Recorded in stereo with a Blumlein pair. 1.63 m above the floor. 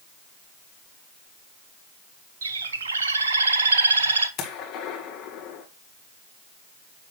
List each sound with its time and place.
2.4 s a bird: 70° right, 1.1 m
4.4 s a gunshot: 35° left, 1.9 m